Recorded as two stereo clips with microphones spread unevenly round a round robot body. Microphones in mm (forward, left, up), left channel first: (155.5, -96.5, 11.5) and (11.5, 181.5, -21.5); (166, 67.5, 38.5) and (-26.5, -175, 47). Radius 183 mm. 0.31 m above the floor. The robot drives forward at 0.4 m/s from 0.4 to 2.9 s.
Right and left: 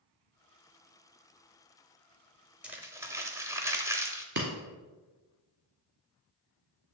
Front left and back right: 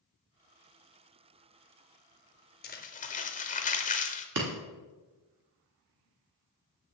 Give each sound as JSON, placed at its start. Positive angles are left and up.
{"t": 2.6, "sound": "crumpling", "azimuth_deg": 45, "distance_m": 0.7}
{"t": 4.3, "sound": "breaking glass", "azimuth_deg": 180, "distance_m": 1.0}